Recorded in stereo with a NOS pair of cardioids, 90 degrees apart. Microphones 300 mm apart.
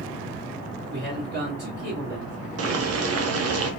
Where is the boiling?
60° right, 0.9 m.